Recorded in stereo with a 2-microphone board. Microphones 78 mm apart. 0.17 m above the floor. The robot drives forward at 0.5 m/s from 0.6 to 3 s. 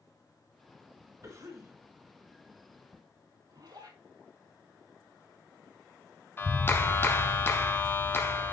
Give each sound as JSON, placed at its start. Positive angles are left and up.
{"t": 1.2, "sound": "a cough", "side_deg": -45, "distance_m": 2.0}
{"t": 3.5, "sound": "a zipper", "side_deg": -60, "distance_m": 4.0}
{"t": 6.4, "sound": "a clap", "side_deg": 30, "distance_m": 1.0}